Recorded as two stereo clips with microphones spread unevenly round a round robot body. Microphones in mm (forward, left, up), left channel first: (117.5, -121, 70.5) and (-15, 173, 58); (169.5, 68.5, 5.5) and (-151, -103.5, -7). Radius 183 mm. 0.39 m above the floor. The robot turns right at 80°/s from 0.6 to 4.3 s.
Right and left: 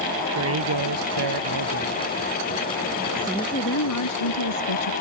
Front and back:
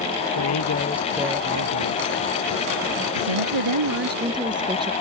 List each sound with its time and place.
0.3 s a man speaking: 75° left; by 2.0 s 170° right
3.2 s a woman speaking: 165° right; by 4.9 s 75° right